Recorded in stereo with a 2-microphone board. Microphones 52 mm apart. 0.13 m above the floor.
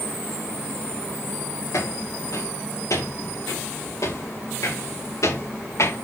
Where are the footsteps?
85° left, 6.5 m; by 6.0 s 70° left (ahead or behind), 4.5 m.